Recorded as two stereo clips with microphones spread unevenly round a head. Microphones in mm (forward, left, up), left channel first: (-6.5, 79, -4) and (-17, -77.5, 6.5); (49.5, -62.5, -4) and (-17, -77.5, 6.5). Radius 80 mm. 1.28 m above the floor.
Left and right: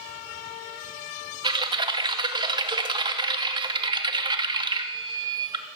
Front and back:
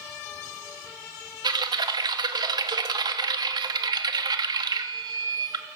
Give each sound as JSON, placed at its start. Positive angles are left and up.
{"t": 1.4, "sound": "typing on a keyboard", "azimuth_deg": -155, "distance_m": 2.5}